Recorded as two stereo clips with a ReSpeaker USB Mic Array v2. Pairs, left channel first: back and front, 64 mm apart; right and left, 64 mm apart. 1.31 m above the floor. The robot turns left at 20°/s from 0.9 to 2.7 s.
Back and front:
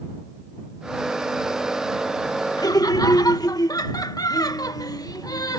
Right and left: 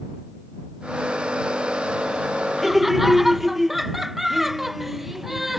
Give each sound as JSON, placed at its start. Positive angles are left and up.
{"t": 2.6, "sound": "laughter", "azimuth_deg": 180}